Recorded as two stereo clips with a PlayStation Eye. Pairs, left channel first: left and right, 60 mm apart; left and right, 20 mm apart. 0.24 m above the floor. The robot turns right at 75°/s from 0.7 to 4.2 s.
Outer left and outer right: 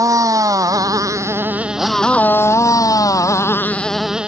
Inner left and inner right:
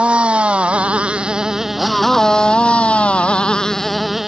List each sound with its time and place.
0.0 s a motorcycle: 75° right (ahead or behind); by 4.3 s 15° right (ahead or behind)